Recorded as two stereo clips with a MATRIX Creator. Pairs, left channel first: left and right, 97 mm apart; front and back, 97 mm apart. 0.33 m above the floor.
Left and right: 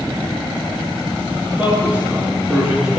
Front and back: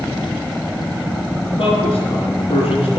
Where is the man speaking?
15° right, 4 m; by 3.0 s 5° right, 3.5 m.